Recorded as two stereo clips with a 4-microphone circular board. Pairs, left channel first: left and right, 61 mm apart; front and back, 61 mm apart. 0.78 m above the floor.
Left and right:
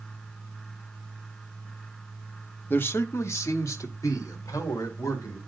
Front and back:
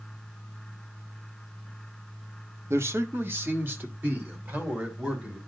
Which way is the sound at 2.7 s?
145° left.